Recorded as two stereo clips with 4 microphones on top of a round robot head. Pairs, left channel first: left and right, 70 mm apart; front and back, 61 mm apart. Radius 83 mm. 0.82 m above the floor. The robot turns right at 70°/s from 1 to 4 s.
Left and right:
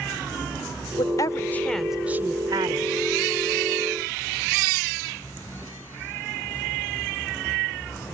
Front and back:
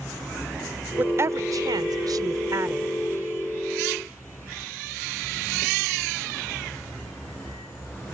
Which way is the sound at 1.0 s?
120° left.